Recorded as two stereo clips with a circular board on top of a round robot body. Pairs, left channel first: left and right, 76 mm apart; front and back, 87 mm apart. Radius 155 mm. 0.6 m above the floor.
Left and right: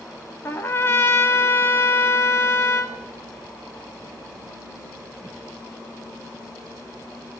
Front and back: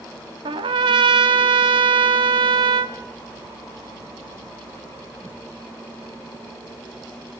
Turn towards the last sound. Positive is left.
turn(degrees=155)